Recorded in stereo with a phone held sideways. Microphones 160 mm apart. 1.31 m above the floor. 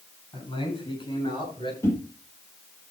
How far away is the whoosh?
About 5 m.